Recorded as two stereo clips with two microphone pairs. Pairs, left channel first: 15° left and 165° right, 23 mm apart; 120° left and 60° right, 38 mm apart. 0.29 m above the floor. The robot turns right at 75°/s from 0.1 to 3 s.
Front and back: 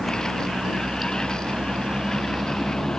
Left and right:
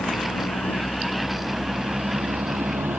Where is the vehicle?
110° left; by 3.0 s 50° right.